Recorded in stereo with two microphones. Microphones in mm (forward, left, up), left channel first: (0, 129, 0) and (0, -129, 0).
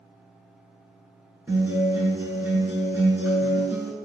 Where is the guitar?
5° right (ahead or behind), 1.1 m.